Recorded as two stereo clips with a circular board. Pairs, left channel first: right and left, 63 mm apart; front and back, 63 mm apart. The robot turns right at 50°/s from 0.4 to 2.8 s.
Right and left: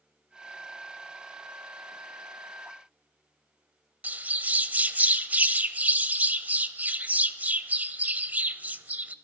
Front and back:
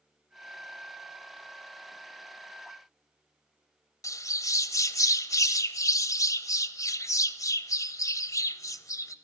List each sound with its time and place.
4.0 s a bird: 25° left, 0.6 m